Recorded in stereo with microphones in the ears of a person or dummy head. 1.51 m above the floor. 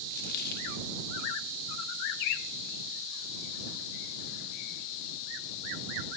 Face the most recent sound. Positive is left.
turn(degrees=45)  # may be behind; listen again after turning